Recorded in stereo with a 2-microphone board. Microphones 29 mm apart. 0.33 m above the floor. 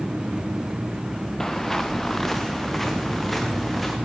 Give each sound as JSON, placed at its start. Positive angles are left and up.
{"t": 1.4, "sound": "footsteps", "side_deg": 10, "distance_m": 1.8}